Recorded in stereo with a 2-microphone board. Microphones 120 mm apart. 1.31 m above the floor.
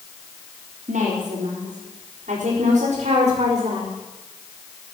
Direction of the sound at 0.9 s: 80° right.